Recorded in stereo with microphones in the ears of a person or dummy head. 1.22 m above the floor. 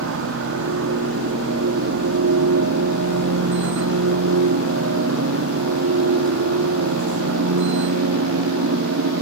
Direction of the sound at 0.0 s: 65° right (ahead or behind).